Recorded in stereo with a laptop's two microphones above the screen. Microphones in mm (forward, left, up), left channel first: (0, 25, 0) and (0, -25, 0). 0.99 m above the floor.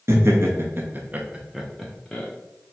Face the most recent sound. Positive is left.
turn(degrees=20)  # may be behind; listen again after turning